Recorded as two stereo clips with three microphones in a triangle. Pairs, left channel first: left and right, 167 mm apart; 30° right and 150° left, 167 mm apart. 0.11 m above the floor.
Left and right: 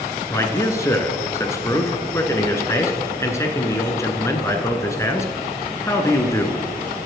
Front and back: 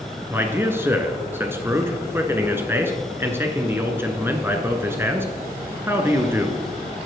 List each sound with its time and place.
0.3 s a man speaking: 110° left, 1.1 m